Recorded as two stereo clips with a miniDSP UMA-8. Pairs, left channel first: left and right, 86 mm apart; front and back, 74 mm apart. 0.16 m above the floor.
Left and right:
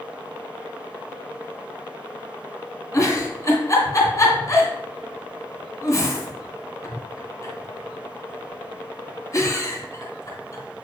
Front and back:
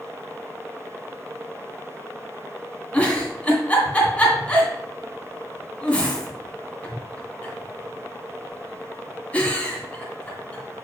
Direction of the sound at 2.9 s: 65° left.